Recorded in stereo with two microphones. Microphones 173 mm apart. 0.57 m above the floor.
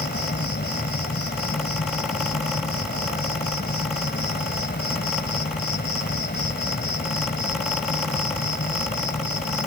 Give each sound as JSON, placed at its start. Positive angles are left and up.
{"t": 0.0, "sound": "an insect", "side_deg": 75}